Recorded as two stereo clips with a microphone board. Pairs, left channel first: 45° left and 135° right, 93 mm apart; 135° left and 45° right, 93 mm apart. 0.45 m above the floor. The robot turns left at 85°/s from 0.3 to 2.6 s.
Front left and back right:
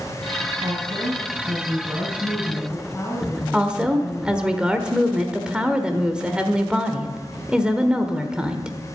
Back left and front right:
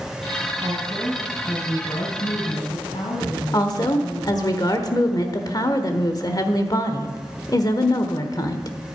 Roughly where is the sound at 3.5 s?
Behind left.